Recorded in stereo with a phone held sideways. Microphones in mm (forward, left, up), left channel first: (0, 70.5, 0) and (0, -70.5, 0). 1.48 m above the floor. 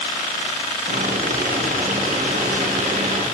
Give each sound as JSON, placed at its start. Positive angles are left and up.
{"t": 0.9, "sound": "boiling", "side_deg": -70, "distance_m": 1.2}